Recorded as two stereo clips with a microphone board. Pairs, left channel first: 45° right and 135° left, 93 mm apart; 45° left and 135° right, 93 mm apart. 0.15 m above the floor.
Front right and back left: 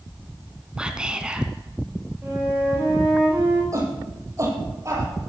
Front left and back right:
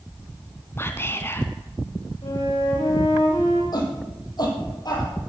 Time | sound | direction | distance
0.8 | whispering | 65° left | 1.7 m
2.2 | a flute | 65° left | 6 m
3.7 | a shout | 85° left | 5.5 m